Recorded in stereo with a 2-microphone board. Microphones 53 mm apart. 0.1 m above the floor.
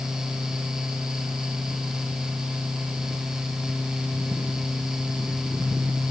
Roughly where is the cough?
No cough in this recording.